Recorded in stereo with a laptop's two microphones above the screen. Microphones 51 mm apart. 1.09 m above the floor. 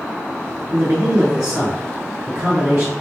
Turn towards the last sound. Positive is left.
turn(degrees=-70)  # may be behind; listen again after turning